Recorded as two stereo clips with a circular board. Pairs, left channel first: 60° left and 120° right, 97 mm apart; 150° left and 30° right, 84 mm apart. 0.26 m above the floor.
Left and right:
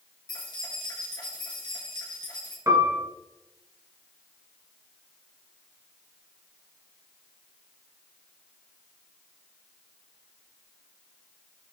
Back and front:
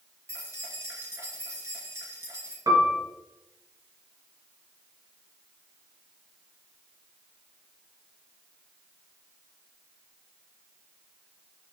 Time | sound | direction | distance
0.3 | keys jangling | 20° left | 3 m
2.7 | a piano | 65° right | 2 m